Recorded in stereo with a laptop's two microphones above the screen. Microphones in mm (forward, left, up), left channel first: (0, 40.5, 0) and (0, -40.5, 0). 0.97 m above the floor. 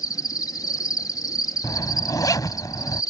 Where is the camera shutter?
I don't hear a camera shutter.